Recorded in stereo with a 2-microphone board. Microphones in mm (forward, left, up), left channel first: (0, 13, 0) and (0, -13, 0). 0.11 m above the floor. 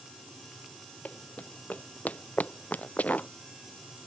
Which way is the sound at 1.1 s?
75° left (ahead or behind).